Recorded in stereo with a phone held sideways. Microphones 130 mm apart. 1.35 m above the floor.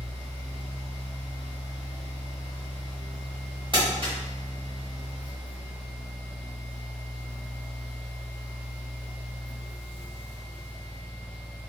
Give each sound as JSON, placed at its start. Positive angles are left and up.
{"t": 0.0, "sound": "a fan", "side_deg": 50, "distance_m": 1.3}
{"t": 3.7, "sound": "crumpling", "side_deg": -40, "distance_m": 1.0}